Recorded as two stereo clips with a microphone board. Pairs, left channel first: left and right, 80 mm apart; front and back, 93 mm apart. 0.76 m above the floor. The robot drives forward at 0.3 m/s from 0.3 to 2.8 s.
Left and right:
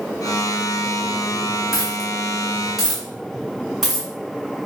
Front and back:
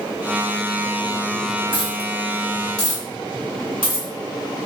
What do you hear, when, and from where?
1.7 s a dropped coin: 175° right, 1.3 m